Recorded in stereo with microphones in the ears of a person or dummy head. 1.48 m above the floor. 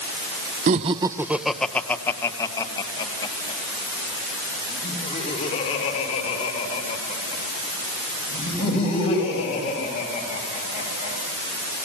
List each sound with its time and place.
0.7 s laughter: 45° right (ahead or behind), 0.6 m; by 11.2 s 35° left (ahead or behind), 8 m